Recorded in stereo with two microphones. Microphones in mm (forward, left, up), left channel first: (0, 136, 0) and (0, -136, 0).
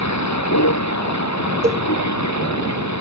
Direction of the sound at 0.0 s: 80° left.